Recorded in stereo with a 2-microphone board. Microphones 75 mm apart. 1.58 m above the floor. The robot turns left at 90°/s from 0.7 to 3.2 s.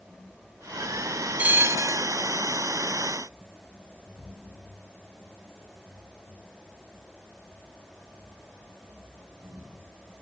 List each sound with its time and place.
1.4 s a bell: 25° right, 0.7 m; by 2.1 s 85° right, 0.7 m